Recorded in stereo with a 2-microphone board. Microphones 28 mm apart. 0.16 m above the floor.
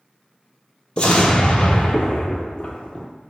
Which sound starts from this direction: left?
An explosion, at 1.0 s.